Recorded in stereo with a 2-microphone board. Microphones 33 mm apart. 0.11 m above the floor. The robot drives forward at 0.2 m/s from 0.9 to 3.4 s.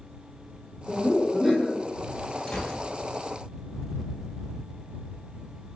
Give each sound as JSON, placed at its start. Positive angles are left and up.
{"t": 0.9, "sound": "laughter", "side_deg": -10, "distance_m": 1.1}
{"t": 2.5, "sound": "a gunshot", "side_deg": 15, "distance_m": 1.0}